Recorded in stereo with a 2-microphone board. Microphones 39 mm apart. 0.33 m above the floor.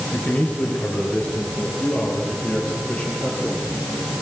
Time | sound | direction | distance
0.1 | a man speaking | 45° left (ahead or behind) | 6 m